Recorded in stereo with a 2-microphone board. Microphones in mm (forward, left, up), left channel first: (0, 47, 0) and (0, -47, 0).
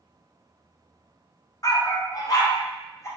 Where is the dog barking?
40° left (ahead or behind), 0.6 m; by 3.1 s 35° left (ahead or behind), 1.5 m.